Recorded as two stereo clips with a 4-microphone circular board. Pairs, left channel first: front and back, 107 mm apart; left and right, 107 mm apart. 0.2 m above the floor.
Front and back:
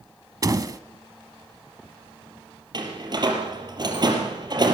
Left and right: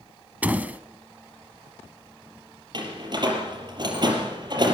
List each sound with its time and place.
0.4 s a door slam: 155° right, 1.1 m
2.7 s a door slam: 135° right, 4.5 m